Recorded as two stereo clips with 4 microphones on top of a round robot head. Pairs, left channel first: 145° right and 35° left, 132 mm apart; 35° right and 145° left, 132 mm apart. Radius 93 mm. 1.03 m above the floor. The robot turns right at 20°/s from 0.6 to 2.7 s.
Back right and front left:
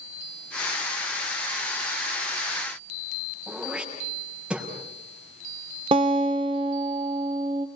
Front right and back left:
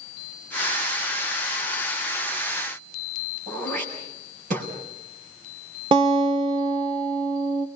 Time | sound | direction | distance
3.5 | throat clearing | 120° left | 6 m
5.9 | a guitar | 90° left | 1.1 m